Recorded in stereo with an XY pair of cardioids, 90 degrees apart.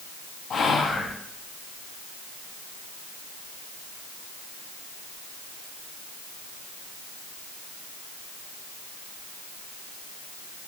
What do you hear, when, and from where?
0.5 s whispering: 60° left, 0.6 m